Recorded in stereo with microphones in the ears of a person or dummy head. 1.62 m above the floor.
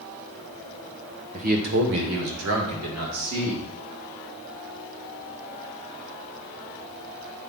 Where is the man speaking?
35° right (ahead or behind), 1.0 m; by 3.6 s 80° right, 2.5 m.